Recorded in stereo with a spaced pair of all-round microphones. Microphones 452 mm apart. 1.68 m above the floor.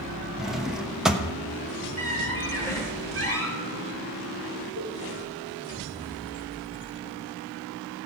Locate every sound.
0.4 s a drawer: centre (ahead or behind), 1.0 m
2.0 s a squeak: 30° right (ahead or behind), 4.5 m
4.8 s a cowbell: 75° right (ahead or behind), 5.5 m